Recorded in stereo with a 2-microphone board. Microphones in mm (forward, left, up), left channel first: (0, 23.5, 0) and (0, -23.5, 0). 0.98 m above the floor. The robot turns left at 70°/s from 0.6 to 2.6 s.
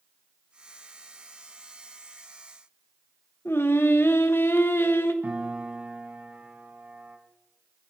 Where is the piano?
30° right (ahead or behind), 2.5 m.